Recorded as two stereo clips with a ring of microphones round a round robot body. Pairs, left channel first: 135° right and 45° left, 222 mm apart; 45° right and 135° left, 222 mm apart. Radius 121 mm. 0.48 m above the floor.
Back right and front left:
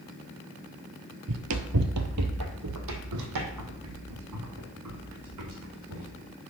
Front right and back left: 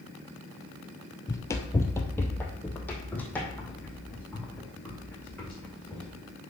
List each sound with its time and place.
1.3 s running footsteps: 30° left, 0.7 m; by 6.1 s 40° left, 3 m